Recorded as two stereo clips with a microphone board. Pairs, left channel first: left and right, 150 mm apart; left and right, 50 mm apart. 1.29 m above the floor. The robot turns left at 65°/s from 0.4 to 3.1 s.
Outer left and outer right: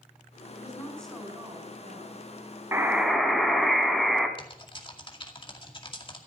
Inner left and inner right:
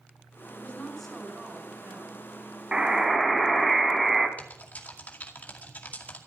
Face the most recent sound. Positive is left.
turn(degrees=40)  # may be behind; listen again after turning